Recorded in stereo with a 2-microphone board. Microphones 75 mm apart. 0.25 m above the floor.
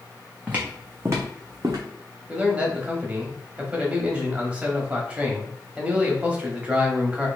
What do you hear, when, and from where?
0.5 s footsteps: 20° right (ahead or behind), 1.2 m; by 1.8 s 50° right (ahead or behind), 1.2 m
2.3 s a man speaking: 15° right (ahead or behind), 1.0 m